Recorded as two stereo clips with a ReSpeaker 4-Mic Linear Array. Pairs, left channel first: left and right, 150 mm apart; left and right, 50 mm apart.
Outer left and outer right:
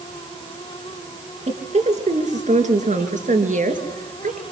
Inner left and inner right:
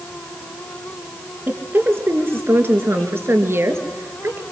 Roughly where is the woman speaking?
Right.